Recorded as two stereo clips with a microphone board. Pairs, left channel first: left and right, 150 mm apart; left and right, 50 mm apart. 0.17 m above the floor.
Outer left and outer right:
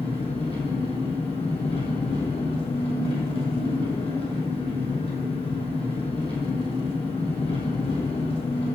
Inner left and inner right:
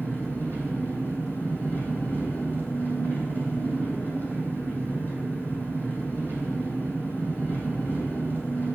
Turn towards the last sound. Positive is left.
turn(degrees=40)  # may be behind; listen again after turning